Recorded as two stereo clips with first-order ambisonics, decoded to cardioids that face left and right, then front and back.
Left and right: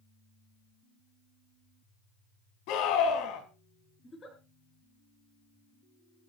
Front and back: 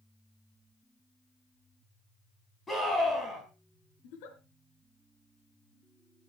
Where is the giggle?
15° left, 3.5 m.